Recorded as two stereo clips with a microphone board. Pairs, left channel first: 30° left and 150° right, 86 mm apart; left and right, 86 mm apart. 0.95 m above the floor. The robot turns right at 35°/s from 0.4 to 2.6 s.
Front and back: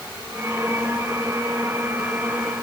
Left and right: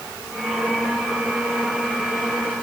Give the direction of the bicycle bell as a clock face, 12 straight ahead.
No bicycle bell in this recording.